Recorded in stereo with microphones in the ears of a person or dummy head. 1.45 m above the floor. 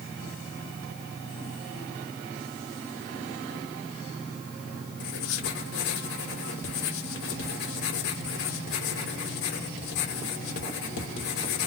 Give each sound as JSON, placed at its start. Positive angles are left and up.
{"t": 5.0, "sound": "writing", "side_deg": 60, "distance_m": 2.0}